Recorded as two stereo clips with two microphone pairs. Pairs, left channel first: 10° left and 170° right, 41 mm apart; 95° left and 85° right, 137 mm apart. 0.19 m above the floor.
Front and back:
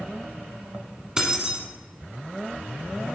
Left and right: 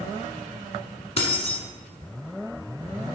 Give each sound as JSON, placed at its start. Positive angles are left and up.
{"t": 1.2, "sound": "keys jangling", "azimuth_deg": 120, "distance_m": 1.1}